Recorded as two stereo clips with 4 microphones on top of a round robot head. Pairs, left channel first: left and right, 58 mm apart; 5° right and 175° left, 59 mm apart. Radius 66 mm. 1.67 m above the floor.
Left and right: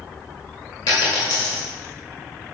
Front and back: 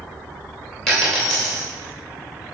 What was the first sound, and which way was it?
A dropped coin, 75° left.